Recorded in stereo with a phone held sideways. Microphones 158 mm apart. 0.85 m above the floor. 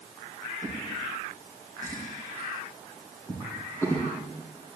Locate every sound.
0.6 s a drawer: 15° left (ahead or behind), 4 m